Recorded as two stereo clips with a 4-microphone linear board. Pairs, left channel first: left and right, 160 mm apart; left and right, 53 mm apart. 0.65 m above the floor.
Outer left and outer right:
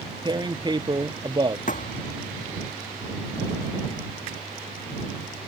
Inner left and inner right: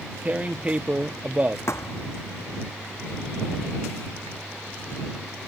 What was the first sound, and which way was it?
Tearing paper, 25° right (ahead or behind).